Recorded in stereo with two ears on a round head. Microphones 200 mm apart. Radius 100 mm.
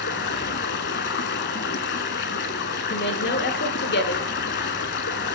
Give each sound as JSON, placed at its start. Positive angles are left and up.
{"t": 0.0, "sound": "running water", "side_deg": 50, "distance_m": 0.8}
{"t": 2.9, "sound": "a woman speaking", "side_deg": 50, "distance_m": 1.3}